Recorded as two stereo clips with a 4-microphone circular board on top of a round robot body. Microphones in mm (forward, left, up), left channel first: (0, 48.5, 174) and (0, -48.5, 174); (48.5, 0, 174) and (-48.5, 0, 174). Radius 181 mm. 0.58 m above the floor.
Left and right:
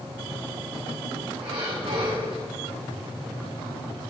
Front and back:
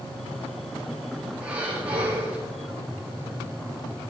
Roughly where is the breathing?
Right.